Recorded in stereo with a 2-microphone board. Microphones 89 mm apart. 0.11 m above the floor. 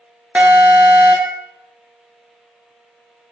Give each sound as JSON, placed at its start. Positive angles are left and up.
{"t": 0.3, "sound": "an alarm", "side_deg": -15, "distance_m": 1.1}